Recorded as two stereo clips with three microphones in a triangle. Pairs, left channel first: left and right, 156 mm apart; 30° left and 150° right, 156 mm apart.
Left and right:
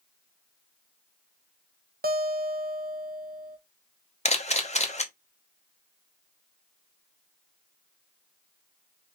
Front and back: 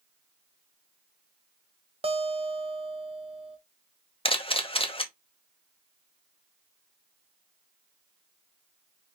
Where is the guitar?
100° right, 0.6 m.